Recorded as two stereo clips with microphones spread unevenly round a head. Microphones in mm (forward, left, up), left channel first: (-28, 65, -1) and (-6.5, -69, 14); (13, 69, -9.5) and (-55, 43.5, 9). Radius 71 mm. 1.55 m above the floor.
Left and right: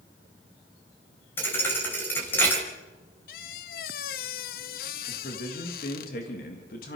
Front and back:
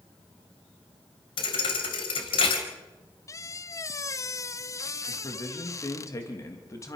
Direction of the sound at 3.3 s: 75° left.